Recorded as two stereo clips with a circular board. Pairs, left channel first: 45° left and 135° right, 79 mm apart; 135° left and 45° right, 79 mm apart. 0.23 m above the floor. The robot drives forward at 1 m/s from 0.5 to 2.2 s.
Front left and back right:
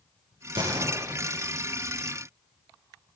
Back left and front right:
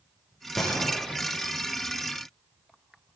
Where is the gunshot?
135° right, 9 m; by 1.6 s 140° right, 10 m.